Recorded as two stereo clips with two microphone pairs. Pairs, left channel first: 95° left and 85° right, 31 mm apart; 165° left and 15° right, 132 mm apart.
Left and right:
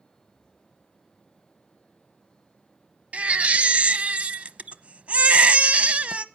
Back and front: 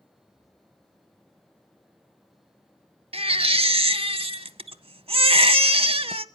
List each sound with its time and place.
3.1 s a baby crying: 45° right, 0.6 m